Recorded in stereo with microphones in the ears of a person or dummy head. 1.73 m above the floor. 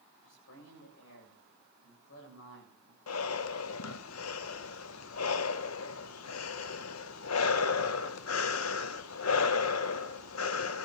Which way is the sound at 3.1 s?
85° left.